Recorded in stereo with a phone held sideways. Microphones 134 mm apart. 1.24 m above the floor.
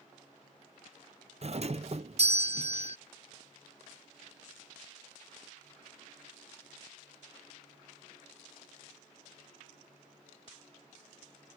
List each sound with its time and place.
1.4 s a doorbell: 50° right (ahead or behind)